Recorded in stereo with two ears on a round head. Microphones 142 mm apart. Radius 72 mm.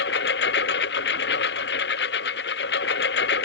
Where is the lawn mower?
80° left.